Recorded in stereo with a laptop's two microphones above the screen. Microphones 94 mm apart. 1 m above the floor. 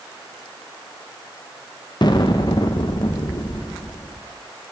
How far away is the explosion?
About 0.6 m.